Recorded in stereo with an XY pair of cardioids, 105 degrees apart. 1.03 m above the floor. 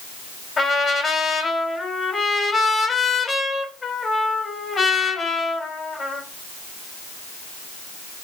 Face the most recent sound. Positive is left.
turn(degrees=30)